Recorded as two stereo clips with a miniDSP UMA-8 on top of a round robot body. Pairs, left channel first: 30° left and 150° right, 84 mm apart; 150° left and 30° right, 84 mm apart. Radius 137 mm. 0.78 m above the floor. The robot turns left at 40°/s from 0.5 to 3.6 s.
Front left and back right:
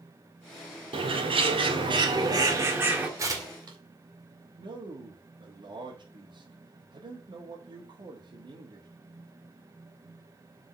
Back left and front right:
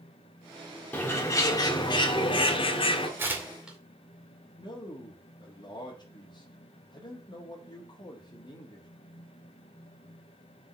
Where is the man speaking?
175° right, 2 m.